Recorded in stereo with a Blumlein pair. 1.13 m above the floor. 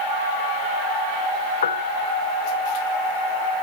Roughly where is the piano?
Ahead left.